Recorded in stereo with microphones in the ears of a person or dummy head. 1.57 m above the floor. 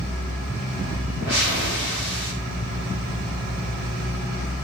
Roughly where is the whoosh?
Centre.